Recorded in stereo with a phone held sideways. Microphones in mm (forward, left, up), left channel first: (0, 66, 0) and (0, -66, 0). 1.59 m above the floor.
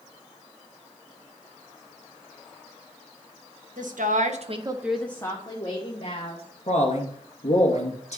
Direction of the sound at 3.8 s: 85° right.